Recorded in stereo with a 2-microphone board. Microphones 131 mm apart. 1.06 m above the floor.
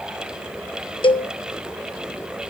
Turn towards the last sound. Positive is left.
turn(degrees=40)  # may be behind; listen again after turning